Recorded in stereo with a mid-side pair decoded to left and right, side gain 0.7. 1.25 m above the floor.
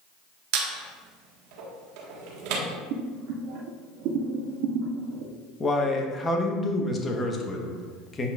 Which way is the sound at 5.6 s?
20° left.